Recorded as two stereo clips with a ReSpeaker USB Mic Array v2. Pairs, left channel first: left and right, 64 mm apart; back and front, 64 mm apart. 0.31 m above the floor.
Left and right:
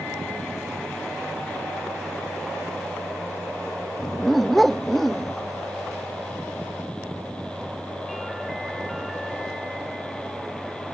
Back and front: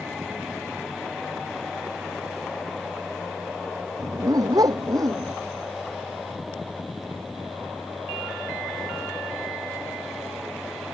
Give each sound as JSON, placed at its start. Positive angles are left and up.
{"t": 4.0, "sound": "a dog barking", "azimuth_deg": 5}